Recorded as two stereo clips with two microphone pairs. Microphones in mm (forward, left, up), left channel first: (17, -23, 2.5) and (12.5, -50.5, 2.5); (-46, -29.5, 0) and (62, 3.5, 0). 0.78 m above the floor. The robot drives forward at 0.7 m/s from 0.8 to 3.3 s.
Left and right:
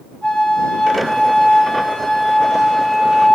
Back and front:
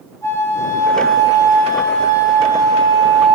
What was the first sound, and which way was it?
A flute, 135° left.